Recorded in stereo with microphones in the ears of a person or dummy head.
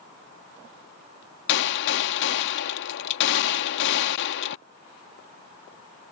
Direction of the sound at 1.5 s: 65° left (ahead or behind).